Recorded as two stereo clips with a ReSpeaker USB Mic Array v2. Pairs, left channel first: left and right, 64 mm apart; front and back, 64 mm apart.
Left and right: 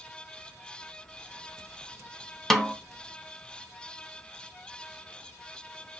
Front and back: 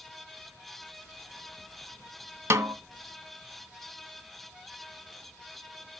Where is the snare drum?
175° left, 0.7 m.